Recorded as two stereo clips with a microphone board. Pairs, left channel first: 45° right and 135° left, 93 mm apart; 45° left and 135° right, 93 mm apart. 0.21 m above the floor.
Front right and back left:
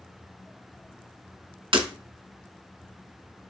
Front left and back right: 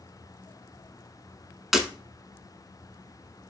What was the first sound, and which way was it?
Breaking glass, 135° left.